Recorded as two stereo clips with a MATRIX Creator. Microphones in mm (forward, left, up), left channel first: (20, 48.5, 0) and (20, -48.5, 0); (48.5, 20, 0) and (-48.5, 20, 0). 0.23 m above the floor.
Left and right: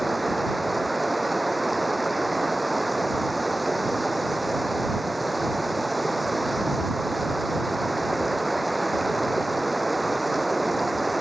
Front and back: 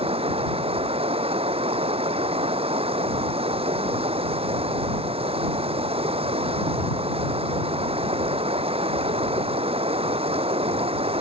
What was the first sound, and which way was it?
Running water, straight behind.